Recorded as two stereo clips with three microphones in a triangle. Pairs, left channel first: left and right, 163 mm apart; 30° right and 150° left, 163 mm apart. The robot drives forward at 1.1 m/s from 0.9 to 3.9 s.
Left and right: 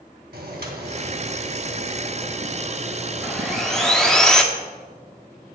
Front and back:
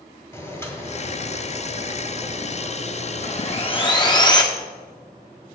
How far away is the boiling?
About 2.0 m.